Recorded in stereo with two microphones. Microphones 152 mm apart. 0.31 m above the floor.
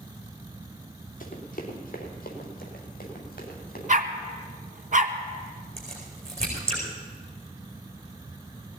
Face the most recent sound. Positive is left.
turn(degrees=-40)  # may be behind; listen again after turning